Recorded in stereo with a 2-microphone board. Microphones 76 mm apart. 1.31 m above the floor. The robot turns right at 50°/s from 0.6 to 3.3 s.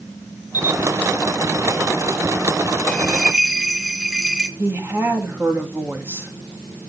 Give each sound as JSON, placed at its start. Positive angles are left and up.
{"t": 0.5, "sound": "a camera shutter", "side_deg": 60, "distance_m": 1.8}
{"t": 2.9, "sound": "a bell", "side_deg": 15, "distance_m": 1.0}
{"t": 4.6, "sound": "a woman speaking", "side_deg": -30, "distance_m": 2.5}